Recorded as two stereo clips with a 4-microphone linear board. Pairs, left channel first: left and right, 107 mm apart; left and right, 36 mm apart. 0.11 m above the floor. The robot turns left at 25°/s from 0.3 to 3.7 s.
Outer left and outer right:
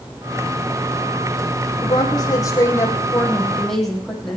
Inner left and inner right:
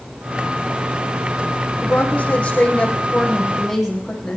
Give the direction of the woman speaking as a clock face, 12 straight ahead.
10 o'clock.